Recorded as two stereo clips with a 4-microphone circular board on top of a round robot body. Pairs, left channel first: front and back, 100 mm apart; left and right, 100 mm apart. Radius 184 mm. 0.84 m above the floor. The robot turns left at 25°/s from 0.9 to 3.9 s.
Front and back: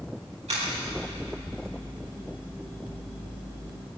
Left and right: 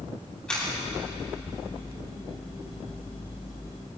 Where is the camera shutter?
170° left, 4 m.